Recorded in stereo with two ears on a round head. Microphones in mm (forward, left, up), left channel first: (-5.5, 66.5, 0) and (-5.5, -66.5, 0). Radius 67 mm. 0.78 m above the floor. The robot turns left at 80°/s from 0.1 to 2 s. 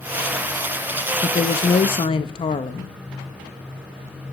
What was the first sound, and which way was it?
A woman speaking, 130° left.